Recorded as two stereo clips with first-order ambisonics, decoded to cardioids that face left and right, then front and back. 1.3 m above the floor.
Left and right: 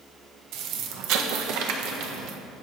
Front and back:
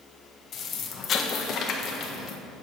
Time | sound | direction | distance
0.5 | an explosion | 60° right | 1.3 m